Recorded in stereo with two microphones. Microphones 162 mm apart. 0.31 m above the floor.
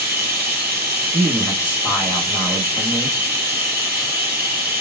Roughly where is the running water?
Centre.